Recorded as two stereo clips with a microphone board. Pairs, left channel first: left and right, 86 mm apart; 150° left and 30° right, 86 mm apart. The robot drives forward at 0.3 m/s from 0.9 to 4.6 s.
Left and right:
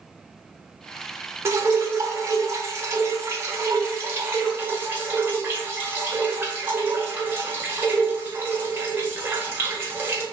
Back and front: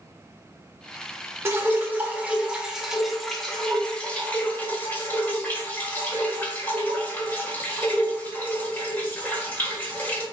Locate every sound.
1.4 s dripping: 65° right, 0.9 m; by 10.2 s 145° right, 1.1 m